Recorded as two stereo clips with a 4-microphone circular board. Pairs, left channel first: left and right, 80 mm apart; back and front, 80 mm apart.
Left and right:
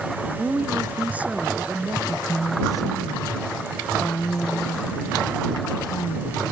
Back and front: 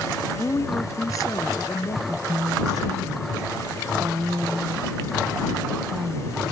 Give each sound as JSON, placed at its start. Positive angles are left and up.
{"t": 0.4, "sound": "a woman speaking", "azimuth_deg": -150}
{"t": 2.1, "sound": "a woman speaking", "azimuth_deg": 45}